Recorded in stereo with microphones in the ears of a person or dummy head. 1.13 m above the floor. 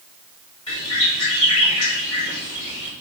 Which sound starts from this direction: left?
A bird, at 0.7 s.